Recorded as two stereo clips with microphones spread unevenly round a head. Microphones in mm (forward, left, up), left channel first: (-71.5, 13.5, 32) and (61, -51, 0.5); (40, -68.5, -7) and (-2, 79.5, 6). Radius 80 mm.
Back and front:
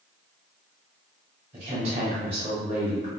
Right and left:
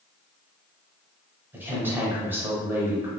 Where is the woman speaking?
30° left, 1.0 m.